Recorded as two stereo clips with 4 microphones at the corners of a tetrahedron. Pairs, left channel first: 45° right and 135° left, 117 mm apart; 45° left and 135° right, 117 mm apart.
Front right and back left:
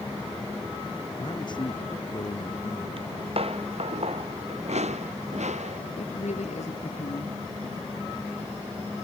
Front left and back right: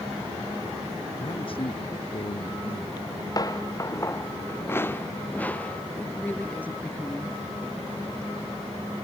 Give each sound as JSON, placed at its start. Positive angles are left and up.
{"t": 1.2, "sound": "a man speaking", "azimuth_deg": 5}
{"t": 3.0, "sound": "footsteps", "azimuth_deg": 100}
{"t": 6.0, "sound": "a woman speaking", "azimuth_deg": -30}